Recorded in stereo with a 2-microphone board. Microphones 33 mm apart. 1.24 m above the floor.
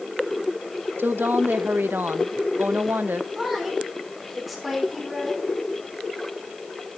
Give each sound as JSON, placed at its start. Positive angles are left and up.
{"t": 1.0, "sound": "a woman speaking", "side_deg": -80, "distance_m": 0.9}
{"t": 3.4, "sound": "a woman speaking", "side_deg": 0, "distance_m": 3.5}